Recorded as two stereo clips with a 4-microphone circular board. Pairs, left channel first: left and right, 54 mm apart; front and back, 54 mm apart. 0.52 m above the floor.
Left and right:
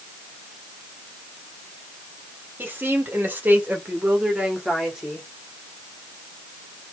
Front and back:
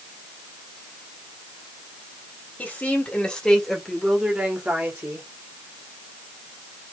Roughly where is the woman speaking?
Ahead right.